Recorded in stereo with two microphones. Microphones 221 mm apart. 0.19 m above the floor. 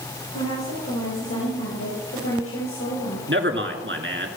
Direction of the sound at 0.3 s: 75° left (ahead or behind).